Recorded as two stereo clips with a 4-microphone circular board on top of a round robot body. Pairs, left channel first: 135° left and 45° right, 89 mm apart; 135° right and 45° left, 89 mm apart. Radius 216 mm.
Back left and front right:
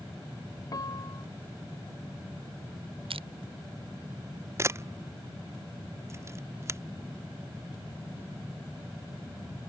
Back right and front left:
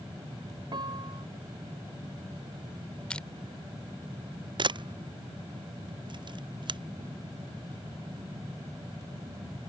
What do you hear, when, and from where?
0.7 s a piano: 85° left
3.1 s crushing: 55° right
4.6 s a camera shutter: 15° left